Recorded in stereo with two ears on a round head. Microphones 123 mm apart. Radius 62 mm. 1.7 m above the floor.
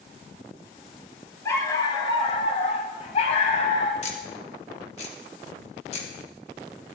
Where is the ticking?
50° left (ahead or behind), 2.5 m.